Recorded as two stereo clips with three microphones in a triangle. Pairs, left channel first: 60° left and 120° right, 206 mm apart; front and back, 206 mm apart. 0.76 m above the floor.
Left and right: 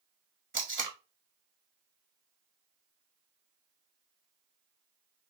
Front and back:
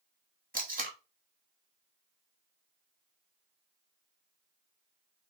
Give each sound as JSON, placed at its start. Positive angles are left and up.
{"t": 0.5, "sound": "tape being pulled", "azimuth_deg": -135, "distance_m": 1.6}